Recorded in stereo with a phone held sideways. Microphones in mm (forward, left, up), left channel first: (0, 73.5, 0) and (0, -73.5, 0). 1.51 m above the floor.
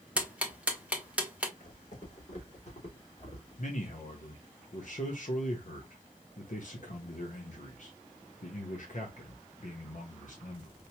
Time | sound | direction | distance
0.2 | ticking | 10° right (ahead or behind) | 1.0 m
1.6 | footsteps | 60° left (ahead or behind) | 3.5 m
3.6 | a man speaking | 60° left (ahead or behind) | 1.2 m